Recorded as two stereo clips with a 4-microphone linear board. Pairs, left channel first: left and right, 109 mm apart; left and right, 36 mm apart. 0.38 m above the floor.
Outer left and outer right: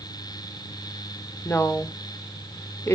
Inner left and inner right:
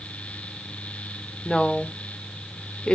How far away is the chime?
No chime in this recording.